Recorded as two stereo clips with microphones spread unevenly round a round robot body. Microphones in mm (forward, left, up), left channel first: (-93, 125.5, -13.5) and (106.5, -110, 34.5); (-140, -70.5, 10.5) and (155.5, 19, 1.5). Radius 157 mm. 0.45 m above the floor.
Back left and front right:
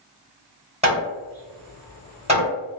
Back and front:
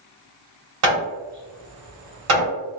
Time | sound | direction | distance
0.8 | hammering | 25° left | 1.8 m